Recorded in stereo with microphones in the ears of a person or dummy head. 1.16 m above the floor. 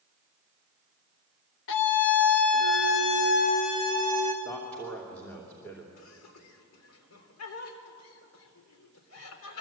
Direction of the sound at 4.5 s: 10° left (ahead or behind).